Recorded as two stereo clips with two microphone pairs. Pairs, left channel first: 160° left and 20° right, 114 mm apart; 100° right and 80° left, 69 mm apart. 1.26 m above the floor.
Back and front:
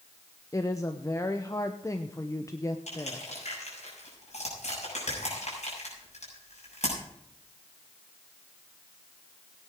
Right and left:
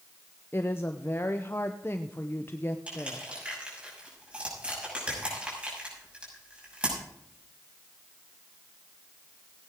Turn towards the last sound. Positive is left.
turn(degrees=150)